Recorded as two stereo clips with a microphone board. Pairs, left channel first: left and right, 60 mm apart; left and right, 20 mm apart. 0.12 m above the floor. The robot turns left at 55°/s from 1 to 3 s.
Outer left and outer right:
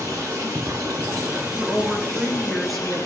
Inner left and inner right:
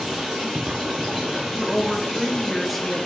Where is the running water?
125° right, 3.5 m; by 3.1 s 125° left, 3.5 m.